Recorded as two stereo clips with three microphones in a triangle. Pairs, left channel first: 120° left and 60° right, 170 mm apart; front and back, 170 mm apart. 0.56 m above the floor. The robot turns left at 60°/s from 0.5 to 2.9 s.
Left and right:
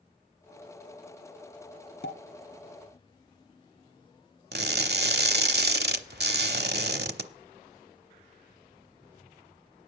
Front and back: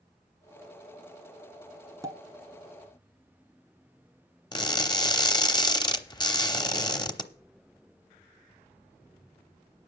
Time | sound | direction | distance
2.0 | a pop | 110° left | 1.2 m
4.5 | crushing | 65° right | 0.9 m